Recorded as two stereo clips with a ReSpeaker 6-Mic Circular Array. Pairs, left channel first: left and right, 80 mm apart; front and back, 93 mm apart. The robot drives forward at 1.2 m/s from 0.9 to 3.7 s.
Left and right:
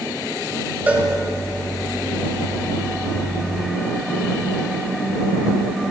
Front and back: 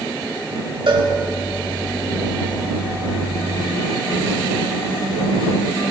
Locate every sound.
0.9 s a cowbell: 160° right, 1.2 m